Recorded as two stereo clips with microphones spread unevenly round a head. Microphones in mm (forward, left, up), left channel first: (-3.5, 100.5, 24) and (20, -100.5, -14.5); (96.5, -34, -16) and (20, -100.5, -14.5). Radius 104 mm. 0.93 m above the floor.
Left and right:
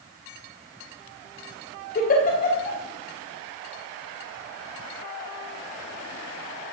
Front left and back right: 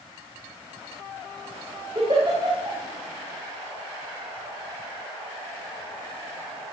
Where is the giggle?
150° left, 3.5 m.